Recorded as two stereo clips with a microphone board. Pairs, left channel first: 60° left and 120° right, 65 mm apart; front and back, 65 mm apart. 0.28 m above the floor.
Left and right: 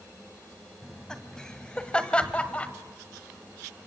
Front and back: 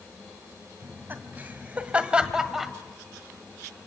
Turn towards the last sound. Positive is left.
turn(degrees=95)